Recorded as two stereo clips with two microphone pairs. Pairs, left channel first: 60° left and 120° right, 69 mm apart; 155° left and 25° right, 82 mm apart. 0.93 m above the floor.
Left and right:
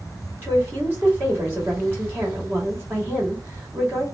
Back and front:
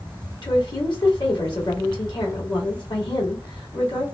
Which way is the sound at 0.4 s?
Straight behind.